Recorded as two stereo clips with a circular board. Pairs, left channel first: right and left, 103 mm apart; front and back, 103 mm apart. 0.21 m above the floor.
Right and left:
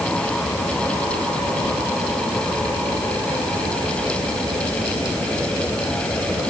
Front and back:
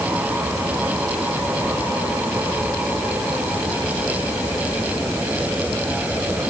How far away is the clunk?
I don't hear a clunk.